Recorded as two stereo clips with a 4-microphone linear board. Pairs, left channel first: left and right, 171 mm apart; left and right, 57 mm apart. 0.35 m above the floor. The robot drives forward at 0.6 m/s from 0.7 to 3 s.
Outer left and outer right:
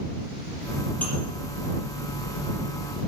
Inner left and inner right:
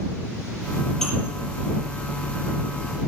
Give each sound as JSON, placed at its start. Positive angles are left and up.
{"t": 1.0, "sound": "dishes clattering", "side_deg": 10, "distance_m": 6.0}